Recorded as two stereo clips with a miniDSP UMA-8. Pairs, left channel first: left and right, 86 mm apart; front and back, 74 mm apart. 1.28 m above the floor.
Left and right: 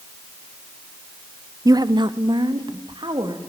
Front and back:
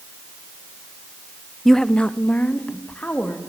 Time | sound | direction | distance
1.6 | a woman speaking | 90° right | 0.5 m